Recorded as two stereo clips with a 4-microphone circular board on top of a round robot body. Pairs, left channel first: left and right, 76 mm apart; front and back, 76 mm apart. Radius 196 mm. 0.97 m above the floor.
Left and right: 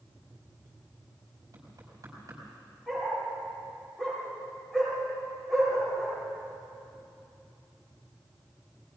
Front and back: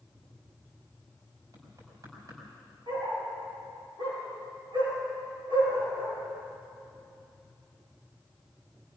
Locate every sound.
1.5 s knocking: 135° right, 5 m
2.9 s a dog barking: 175° left, 6.5 m